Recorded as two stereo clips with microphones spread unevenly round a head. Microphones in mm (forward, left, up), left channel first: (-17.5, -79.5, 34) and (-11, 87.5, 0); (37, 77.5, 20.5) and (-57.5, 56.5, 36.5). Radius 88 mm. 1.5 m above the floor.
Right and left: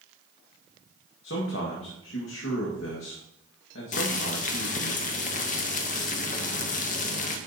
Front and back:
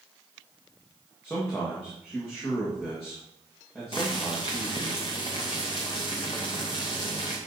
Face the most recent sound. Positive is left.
turn(degrees=-55)